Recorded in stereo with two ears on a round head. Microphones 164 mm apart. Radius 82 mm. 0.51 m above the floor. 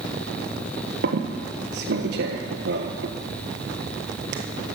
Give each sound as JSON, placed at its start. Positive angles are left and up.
{"t": 1.0, "sound": "a squeak", "side_deg": -65, "distance_m": 1.6}